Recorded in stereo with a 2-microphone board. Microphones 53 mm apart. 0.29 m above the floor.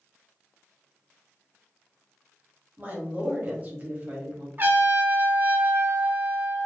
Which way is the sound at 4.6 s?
35° right (ahead or behind).